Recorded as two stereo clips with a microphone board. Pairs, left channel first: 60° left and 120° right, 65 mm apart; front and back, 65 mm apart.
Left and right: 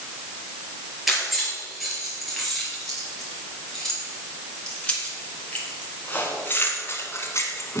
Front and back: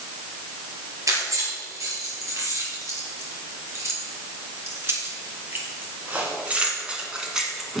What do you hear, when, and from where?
1.1 s keys jangling: 155° left, 4 m; by 7.8 s 95° left, 2.0 m